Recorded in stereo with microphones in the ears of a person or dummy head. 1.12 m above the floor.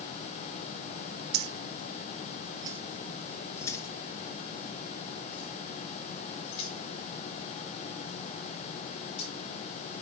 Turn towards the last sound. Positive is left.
turn(degrees=40)  # may be behind; listen again after turning